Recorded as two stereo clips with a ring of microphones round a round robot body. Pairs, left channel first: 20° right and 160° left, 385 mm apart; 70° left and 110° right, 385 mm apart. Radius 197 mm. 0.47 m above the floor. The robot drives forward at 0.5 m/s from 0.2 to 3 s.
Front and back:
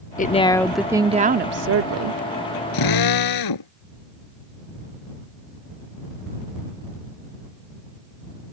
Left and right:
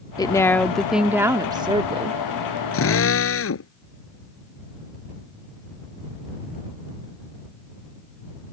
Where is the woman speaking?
5° left; by 2.2 s straight behind.